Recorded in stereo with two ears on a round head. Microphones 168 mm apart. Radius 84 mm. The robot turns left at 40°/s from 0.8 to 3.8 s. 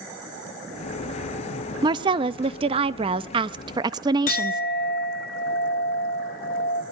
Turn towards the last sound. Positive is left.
turn(degrees=45)  # may be behind; listen again after turning